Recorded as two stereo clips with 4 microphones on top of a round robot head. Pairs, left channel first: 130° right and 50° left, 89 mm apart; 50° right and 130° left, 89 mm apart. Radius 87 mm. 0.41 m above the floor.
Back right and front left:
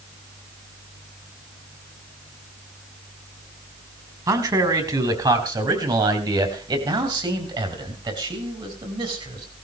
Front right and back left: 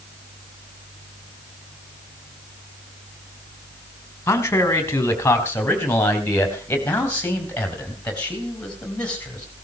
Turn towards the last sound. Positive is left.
turn(degrees=25)